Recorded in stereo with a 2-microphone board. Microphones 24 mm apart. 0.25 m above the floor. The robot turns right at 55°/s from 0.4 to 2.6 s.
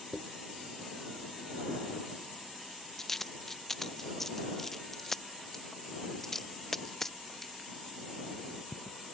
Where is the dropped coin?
50° left (ahead or behind); by 9.0 s 10° left (ahead or behind).